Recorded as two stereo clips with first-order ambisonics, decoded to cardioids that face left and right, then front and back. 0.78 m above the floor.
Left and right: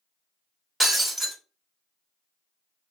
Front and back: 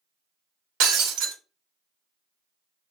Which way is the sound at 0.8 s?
175° right.